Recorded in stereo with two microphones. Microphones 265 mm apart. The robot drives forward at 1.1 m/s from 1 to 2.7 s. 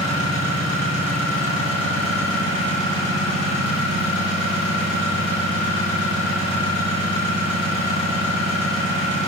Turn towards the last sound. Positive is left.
turn(degrees=-50)  # may be behind; listen again after turning